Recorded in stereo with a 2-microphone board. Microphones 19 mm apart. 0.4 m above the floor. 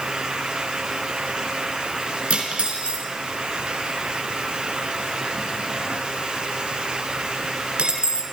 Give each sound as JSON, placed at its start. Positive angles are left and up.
{"t": 2.3, "sound": "cutlery clinking", "side_deg": -70, "distance_m": 3.5}